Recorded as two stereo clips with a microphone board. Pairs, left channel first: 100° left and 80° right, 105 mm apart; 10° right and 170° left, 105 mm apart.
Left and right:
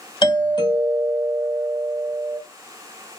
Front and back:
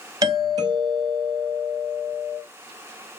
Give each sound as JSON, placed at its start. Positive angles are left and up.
{"t": 0.2, "sound": "a doorbell", "azimuth_deg": 130, "distance_m": 2.5}